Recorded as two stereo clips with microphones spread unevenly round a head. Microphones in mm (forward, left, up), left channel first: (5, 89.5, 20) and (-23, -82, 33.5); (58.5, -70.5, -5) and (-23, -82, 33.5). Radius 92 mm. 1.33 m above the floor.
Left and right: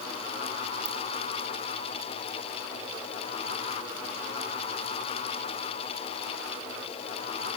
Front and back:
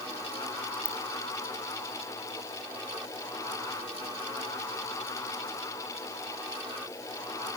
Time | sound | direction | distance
0.8 | a ringtone | 70° right | 3 m